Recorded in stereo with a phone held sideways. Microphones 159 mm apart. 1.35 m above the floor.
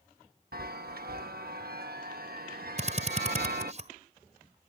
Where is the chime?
75° right (ahead or behind).